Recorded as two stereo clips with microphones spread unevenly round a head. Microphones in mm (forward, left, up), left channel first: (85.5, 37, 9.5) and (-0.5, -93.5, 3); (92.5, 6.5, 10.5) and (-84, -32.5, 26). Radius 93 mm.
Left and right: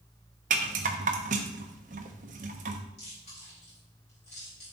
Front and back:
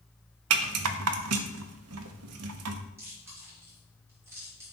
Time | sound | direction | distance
0.5 | a rattle | 175° right | 0.8 m
3.0 | chewing | 115° left | 3.5 m